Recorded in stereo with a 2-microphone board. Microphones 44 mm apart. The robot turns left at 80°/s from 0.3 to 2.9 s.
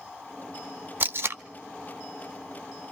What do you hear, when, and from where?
1.0 s tape being pulled: 45° right (ahead or behind), 0.5 m; by 1.4 s 55° right (ahead or behind), 0.5 m